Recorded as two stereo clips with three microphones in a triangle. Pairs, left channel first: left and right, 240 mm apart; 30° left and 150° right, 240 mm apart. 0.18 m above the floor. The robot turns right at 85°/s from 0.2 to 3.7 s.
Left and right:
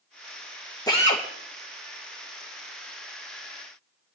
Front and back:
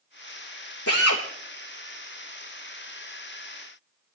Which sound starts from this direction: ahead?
A drill, at 0.9 s.